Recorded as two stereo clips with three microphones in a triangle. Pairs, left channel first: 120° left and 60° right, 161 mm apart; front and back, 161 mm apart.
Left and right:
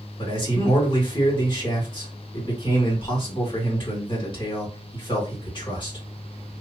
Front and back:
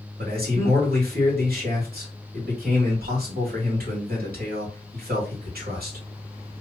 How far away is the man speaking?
About 2.5 m.